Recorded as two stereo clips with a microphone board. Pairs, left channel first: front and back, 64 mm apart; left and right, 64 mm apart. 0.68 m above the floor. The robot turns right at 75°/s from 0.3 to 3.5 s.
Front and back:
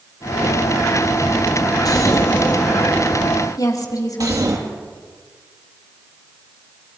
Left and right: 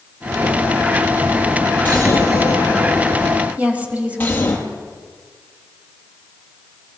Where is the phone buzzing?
No phone buzzing in this recording.